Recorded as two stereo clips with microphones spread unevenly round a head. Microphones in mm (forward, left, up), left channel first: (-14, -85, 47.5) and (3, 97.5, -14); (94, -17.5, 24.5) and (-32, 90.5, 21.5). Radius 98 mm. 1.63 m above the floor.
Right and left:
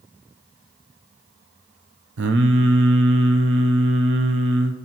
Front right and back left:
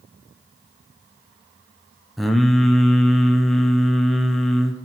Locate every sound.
2.2 s singing: 50° left, 0.7 m